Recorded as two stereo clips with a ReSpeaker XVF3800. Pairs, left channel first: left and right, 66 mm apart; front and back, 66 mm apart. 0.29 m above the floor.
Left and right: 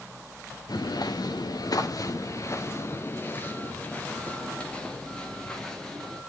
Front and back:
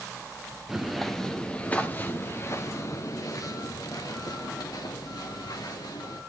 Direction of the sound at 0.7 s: 95° left.